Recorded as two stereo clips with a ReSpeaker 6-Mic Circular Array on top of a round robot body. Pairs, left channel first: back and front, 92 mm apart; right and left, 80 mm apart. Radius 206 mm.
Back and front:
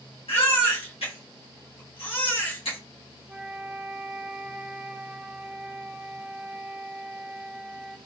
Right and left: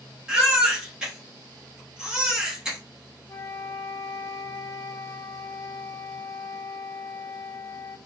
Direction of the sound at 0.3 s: 170° left.